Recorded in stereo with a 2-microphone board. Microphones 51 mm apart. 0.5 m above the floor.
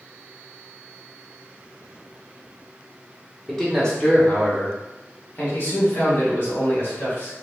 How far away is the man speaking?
About 1.1 m.